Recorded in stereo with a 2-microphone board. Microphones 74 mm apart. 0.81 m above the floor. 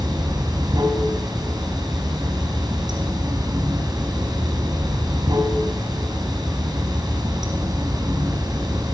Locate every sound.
0.0 s running water: 65° right (ahead or behind), 4.5 m